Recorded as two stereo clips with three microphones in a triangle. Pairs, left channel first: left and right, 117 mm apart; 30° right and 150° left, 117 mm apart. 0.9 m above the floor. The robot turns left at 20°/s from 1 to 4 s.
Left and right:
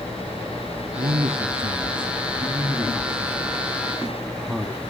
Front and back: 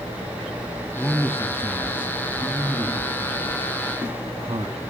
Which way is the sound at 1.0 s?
115° right.